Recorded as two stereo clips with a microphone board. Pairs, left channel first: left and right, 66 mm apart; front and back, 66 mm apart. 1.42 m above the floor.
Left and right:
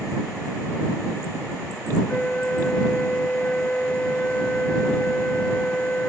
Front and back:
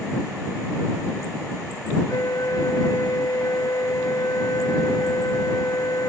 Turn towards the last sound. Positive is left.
turn(degrees=20)